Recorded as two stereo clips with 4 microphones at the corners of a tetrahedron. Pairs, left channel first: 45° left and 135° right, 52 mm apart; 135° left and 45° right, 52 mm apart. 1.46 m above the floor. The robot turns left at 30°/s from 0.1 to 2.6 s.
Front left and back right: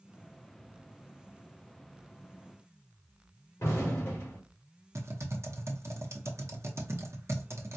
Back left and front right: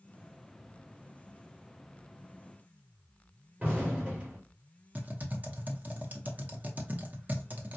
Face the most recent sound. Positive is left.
turn(degrees=-105)